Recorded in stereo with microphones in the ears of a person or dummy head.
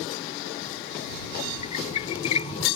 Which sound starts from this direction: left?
A squeak, at 1.6 s.